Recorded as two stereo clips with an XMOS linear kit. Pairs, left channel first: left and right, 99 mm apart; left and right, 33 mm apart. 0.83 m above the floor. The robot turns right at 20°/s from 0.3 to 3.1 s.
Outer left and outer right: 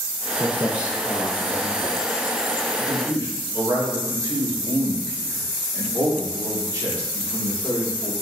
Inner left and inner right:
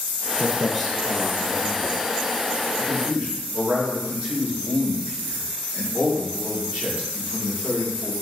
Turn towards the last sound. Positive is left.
turn(degrees=-45)  # may be behind; listen again after turning